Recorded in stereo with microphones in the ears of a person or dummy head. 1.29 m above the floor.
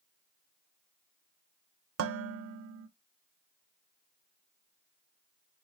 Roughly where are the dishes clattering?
Right.